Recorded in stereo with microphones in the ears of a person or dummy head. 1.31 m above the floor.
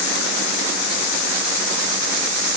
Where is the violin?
I don't hear a violin.